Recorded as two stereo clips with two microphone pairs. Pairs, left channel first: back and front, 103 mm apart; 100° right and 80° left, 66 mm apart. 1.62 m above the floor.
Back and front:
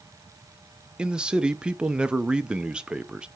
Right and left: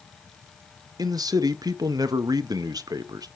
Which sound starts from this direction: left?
A man speaking, at 1.0 s.